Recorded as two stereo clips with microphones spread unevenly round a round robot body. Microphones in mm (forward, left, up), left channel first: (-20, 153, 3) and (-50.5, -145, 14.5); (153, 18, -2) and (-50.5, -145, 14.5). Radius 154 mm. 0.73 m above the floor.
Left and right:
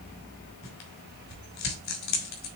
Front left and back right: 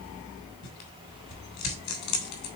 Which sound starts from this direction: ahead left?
Tearing paper, at 0.6 s.